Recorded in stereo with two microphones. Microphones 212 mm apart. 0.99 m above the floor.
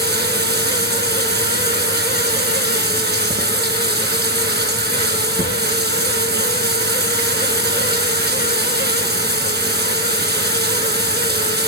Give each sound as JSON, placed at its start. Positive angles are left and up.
{"t": 0.0, "sound": "running water", "side_deg": -50, "distance_m": 4.5}